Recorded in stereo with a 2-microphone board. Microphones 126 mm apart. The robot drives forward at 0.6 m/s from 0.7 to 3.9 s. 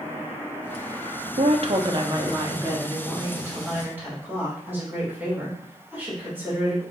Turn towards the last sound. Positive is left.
turn(degrees=-15)  # may be behind; listen again after turning